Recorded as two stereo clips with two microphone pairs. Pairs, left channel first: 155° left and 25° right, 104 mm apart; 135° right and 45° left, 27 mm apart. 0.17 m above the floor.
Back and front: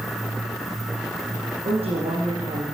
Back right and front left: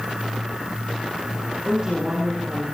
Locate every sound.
1.6 s a woman speaking: 15° right, 10 m